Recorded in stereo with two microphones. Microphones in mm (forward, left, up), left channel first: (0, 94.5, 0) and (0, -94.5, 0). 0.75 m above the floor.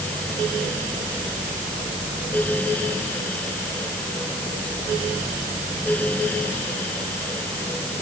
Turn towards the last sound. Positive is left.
No sound to turn to.